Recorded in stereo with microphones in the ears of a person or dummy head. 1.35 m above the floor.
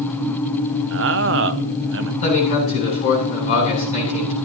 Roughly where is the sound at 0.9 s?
Right.